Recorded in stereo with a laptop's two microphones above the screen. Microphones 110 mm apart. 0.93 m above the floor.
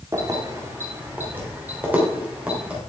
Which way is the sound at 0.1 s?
30° right (ahead or behind).